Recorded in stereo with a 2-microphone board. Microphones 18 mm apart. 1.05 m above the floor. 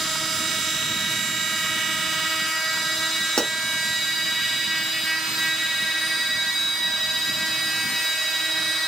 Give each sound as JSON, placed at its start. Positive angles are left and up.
{"t": 3.4, "sound": "a pop", "side_deg": 55, "distance_m": 0.7}